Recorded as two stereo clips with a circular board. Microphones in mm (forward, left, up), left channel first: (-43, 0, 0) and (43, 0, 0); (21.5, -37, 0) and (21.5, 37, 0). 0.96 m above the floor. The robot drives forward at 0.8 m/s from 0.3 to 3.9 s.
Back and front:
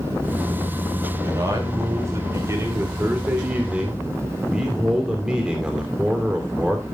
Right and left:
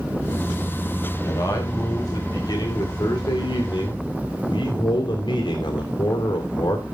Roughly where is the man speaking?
Ahead right.